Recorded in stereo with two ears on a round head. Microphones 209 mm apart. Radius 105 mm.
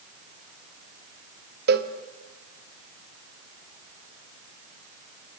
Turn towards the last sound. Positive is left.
turn(degrees=-45)  # may be behind; listen again after turning